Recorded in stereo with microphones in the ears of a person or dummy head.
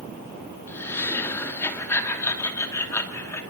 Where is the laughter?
10° left (ahead or behind), 2.5 m.